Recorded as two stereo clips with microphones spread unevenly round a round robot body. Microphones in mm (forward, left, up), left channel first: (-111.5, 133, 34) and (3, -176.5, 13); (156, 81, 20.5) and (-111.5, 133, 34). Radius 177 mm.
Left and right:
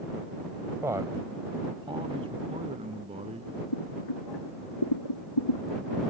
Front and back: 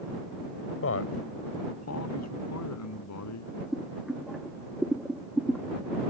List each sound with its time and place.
0.8 s a man speaking: 10° left; by 3.6 s 5° left
3.7 s boiling: 80° left